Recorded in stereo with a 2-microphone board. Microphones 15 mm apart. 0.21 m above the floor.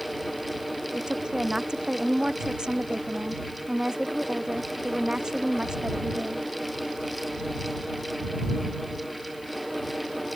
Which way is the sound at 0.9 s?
55° right (ahead or behind).